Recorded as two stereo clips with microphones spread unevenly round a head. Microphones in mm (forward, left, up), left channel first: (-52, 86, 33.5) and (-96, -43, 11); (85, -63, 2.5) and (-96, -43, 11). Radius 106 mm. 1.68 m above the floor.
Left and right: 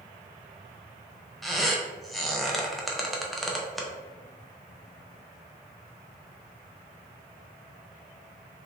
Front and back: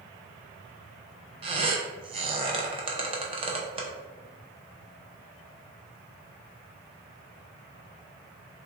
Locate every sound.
1.4 s a squeak: 145° left, 0.6 m